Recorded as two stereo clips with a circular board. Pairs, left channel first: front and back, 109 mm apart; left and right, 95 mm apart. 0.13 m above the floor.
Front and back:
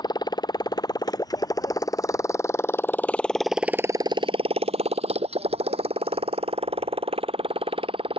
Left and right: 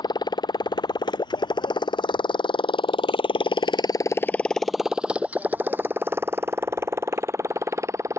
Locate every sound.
0.0 s a motorcycle: 50° left; by 8.2 s 150° right